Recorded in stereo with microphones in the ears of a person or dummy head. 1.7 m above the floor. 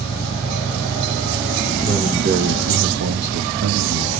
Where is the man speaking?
35° right (ahead or behind), 1.0 m; by 4.1 s 65° right (ahead or behind), 1.1 m.